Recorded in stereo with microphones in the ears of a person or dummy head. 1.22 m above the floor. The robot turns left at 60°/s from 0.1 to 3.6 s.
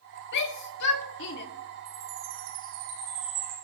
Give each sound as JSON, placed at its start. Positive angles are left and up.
{"t": 0.3, "sound": "a shout", "side_deg": 60, "distance_m": 2.0}
{"t": 1.9, "sound": "a chime", "azimuth_deg": -60, "distance_m": 9.5}